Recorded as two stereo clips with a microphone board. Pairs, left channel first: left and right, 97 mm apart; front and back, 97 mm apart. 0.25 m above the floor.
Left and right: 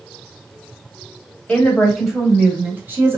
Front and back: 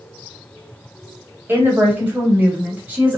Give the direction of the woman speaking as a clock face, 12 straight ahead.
7 o'clock.